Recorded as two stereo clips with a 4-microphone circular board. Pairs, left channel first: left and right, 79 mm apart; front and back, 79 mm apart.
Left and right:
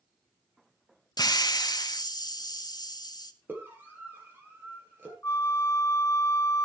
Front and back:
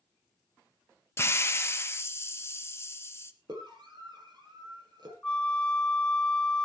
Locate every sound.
1.2 s a hiss: 55° left, 1.1 m
3.5 s a scream: 155° right, 10 m
5.2 s a flute: 70° left, 0.6 m